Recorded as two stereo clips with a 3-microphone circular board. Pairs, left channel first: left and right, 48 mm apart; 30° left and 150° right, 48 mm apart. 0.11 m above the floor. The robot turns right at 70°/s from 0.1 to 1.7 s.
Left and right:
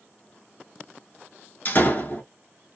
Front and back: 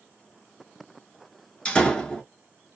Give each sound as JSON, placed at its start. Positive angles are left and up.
{"t": 1.6, "sound": "a door slam", "azimuth_deg": 85, "distance_m": 0.9}